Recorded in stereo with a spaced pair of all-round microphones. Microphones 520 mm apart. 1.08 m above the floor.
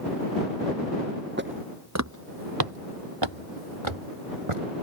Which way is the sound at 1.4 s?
20° right (ahead or behind).